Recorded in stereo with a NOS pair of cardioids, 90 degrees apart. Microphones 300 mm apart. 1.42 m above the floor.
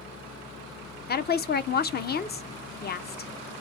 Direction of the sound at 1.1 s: 35° left.